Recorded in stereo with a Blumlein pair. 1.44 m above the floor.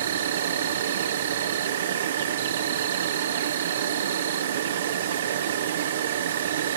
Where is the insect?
60° right, 1.0 m.